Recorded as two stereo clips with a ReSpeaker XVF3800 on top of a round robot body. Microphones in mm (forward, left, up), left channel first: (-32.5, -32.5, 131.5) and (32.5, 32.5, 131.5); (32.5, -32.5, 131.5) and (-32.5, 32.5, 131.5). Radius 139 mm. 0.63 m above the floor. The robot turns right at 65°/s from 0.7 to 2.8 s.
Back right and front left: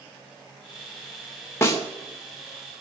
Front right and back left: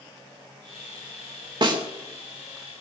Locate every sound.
1.6 s a snare drum: 165° left, 3 m; by 1.8 s straight behind, 3 m